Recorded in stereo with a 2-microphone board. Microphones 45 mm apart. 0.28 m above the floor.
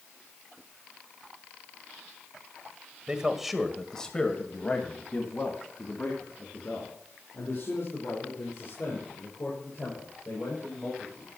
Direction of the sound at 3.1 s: 20° right (ahead or behind).